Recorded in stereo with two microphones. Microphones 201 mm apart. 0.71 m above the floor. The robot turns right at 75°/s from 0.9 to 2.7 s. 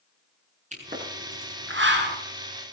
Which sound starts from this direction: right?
A pop, at 0.7 s.